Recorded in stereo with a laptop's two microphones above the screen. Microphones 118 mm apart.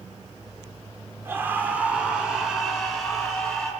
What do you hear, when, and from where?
1.2 s a scream: 20° right (ahead or behind), 2.5 m; by 3.7 s 5° left (ahead or behind), 5 m